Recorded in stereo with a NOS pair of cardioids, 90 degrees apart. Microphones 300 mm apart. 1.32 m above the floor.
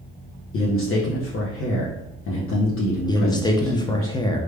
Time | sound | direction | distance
0.5 | a man speaking | 45° left | 0.8 m
3.1 | a man speaking | 15° left | 0.7 m